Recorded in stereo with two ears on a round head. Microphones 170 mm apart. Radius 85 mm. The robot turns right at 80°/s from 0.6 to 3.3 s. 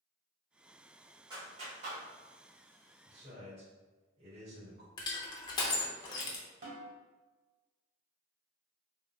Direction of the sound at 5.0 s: 20° left (ahead or behind).